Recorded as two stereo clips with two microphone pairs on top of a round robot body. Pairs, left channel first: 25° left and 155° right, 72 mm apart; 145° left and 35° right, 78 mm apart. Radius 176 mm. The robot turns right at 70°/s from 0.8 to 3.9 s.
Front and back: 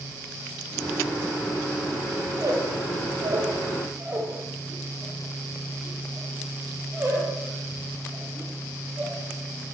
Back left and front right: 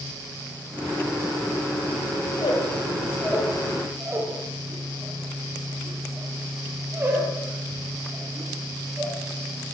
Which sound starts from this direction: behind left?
A squeak, at 2.3 s.